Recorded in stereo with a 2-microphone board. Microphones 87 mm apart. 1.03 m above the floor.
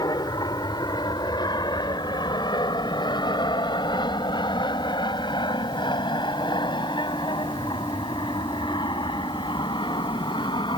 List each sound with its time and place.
0.0 s an aircraft: 50° left (ahead or behind); by 10.8 s 65° left (ahead or behind)